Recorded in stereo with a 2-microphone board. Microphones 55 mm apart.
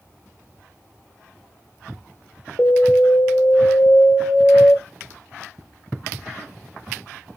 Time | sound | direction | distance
2.6 | an alarm | 50° left (ahead or behind) | 0.6 m